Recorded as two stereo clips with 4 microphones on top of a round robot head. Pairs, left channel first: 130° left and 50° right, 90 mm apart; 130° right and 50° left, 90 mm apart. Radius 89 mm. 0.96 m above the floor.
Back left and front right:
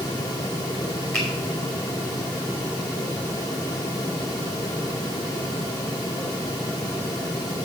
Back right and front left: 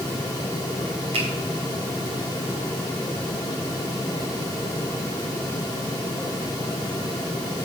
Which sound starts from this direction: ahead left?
A finger snap, at 1.1 s.